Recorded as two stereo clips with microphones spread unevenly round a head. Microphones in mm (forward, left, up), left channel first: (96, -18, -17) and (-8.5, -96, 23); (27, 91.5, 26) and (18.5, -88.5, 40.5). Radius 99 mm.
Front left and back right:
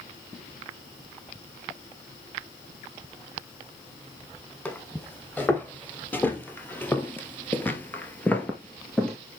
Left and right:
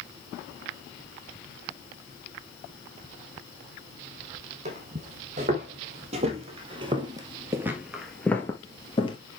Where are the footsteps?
50° right, 3 m; by 9.2 s 140° left, 1.6 m.